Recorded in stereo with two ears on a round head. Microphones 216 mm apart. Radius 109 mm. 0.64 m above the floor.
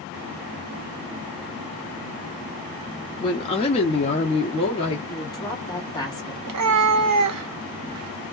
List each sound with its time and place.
3.2 s a woman speaking: 20° left (ahead or behind), 0.5 m; by 5.0 s 25° left (ahead or behind), 1.0 m
5.1 s a woman speaking: 15° left (ahead or behind), 1.4 m
6.5 s a cat meowing: 75° right (ahead or behind), 0.6 m